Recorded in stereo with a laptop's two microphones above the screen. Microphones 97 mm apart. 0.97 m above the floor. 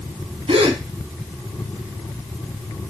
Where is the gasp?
85° right, 1.0 m.